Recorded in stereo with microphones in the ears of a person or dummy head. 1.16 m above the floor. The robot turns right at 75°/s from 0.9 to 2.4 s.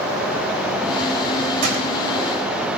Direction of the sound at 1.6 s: 55° right (ahead or behind).